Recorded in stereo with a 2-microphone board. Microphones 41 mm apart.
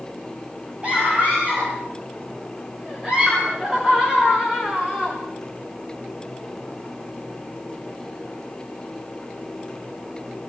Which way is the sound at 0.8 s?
30° right (ahead or behind).